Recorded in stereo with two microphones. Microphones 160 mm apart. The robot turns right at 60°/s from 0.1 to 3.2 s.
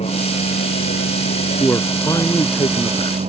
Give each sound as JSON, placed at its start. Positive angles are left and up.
{"t": 0.0, "sound": "a vehicle", "side_deg": 40}
{"t": 1.6, "sound": "a man speaking", "azimuth_deg": 15}